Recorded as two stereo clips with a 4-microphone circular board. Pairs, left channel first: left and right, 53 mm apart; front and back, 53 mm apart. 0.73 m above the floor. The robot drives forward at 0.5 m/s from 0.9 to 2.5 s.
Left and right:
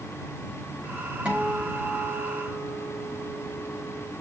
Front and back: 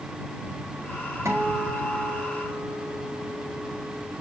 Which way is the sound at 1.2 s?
160° right.